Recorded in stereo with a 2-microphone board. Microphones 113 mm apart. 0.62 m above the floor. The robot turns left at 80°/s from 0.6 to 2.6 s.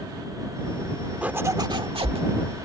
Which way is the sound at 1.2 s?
15° right.